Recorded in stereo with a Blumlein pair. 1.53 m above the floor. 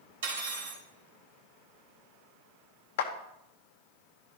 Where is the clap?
55° left, 0.9 m.